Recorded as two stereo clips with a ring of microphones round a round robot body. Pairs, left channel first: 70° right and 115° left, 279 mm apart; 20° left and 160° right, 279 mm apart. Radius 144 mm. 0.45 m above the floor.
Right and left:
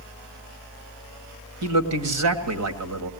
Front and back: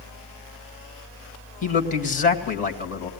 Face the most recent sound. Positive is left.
turn(degrees=85)